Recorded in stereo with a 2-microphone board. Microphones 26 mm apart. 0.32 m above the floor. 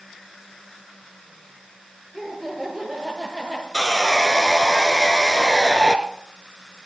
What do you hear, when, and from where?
2.1 s laughter: 5° left (ahead or behind), 5.5 m; by 3.6 s 15° left (ahead or behind), 6 m
3.7 s sawing: 15° left (ahead or behind), 1.1 m